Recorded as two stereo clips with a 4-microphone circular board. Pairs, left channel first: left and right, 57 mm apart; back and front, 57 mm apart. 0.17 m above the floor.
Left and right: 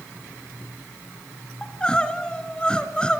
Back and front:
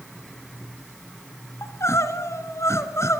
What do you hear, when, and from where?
1.6 s crying: 160° left, 1.7 m